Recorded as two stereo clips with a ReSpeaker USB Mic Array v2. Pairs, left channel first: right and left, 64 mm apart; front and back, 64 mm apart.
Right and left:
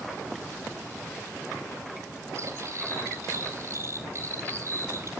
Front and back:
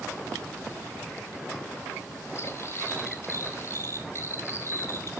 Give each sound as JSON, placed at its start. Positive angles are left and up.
{"t": 2.4, "sound": "cutlery clinking", "azimuth_deg": 45, "distance_m": 4.0}